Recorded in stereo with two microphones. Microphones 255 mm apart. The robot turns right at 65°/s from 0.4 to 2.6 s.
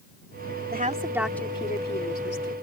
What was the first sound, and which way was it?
A woman speaking, 35° right.